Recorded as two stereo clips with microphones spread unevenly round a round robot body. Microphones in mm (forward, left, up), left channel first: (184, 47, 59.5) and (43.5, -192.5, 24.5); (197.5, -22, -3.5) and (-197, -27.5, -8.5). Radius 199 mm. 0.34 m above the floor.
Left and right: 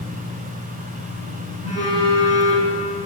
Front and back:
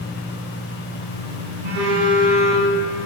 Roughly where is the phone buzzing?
Behind.